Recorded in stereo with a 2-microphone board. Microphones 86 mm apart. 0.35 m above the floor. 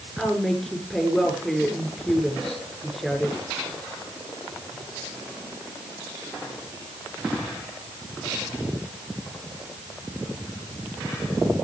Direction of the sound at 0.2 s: Centre (ahead or behind).